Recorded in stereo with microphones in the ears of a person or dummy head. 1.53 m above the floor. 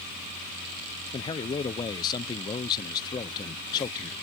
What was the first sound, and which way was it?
A man speaking, 25° left (ahead or behind).